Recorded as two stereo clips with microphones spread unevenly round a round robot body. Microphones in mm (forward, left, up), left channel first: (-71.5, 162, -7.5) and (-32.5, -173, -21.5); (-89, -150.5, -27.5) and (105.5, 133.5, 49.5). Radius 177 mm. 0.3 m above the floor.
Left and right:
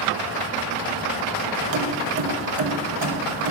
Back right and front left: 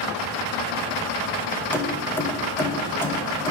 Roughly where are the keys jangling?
Ahead right.